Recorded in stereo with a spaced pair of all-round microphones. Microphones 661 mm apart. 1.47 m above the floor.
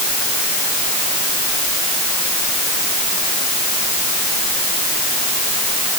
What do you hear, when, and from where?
Only background noise.